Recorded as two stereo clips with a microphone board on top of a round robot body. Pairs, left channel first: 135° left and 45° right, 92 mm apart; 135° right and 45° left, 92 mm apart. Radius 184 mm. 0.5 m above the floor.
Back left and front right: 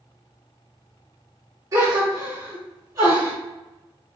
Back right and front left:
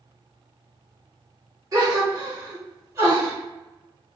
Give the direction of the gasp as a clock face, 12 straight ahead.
12 o'clock.